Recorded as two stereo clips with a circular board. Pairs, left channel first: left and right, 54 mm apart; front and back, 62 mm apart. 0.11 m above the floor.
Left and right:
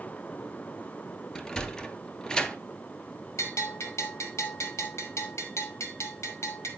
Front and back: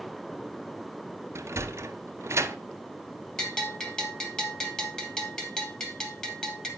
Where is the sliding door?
165° left, 0.7 m.